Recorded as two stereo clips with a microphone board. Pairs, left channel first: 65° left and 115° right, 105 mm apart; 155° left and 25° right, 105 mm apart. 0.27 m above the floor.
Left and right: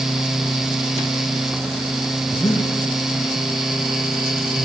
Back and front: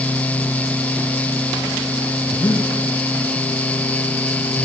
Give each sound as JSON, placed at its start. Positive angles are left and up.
{"t": 2.3, "sound": "breathing", "azimuth_deg": 115, "distance_m": 4.0}